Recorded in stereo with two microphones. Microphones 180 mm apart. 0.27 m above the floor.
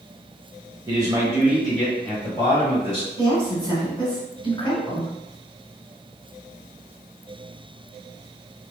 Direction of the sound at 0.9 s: 25° right (ahead or behind).